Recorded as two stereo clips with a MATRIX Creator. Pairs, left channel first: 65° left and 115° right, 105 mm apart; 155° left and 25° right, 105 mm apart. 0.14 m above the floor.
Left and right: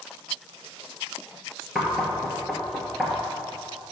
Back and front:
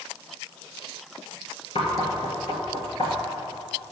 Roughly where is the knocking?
Behind left.